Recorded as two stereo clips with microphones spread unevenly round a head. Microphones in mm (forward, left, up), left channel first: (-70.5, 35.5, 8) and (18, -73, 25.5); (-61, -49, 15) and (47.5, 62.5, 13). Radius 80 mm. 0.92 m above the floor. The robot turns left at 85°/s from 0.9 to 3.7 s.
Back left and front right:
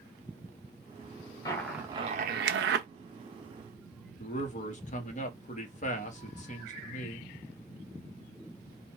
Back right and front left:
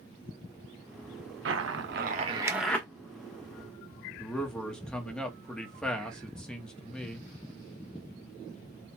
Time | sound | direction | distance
1.4 | a zipper | 60° left | 0.9 m
4.2 | a man speaking | 140° left | 1.1 m